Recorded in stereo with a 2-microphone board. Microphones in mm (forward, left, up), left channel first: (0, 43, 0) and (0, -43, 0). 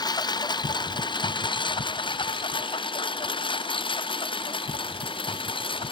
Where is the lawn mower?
55° left (ahead or behind); by 5.9 s 90° left.